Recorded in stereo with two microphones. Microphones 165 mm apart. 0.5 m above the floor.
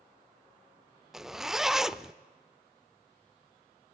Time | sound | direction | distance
1.1 | a zipper | centre (ahead or behind) | 0.5 m